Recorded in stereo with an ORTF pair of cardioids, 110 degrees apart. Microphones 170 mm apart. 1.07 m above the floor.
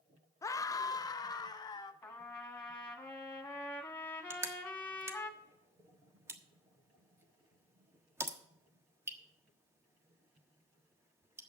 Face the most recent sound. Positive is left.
turn(degrees=-15)